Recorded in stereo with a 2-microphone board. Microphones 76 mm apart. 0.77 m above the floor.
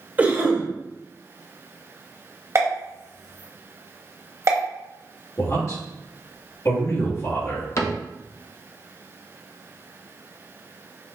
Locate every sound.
0.2 s a cough: 25° right (ahead or behind), 0.8 m
2.5 s a pop: 45° right (ahead or behind), 1.0 m
5.4 s a man speaking: 45° left (ahead or behind), 1.4 m
7.8 s a cupboard door: 45° left (ahead or behind), 0.5 m